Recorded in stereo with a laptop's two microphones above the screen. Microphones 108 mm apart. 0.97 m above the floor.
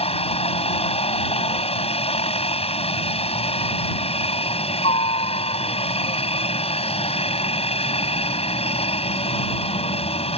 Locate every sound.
0.0 s a helicopter: 75° left (ahead or behind)